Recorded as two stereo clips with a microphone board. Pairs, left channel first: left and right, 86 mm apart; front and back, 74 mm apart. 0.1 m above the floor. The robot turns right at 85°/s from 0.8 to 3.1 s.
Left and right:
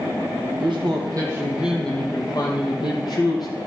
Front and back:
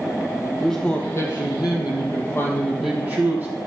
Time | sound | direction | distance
0.6 | a man speaking | 80° right | 3.5 m